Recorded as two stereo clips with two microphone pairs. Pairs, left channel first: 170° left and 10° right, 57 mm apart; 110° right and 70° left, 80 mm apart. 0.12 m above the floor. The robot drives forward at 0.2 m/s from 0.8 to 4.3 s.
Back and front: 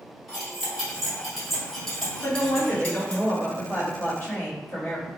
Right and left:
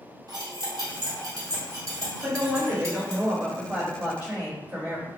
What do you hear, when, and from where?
0.3 s cutlery clinking: 75° left, 1.4 m; by 3.2 s 100° left, 1.3 m
2.2 s a woman speaking: 120° left, 1.7 m; by 5.1 s 135° left, 1.9 m